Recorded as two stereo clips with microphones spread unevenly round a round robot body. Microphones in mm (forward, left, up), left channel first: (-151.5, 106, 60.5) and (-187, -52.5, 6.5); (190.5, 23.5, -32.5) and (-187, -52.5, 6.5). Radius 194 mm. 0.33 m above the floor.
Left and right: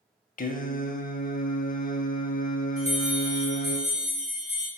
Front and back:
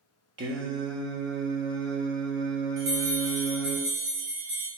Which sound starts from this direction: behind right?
A bell, at 2.8 s.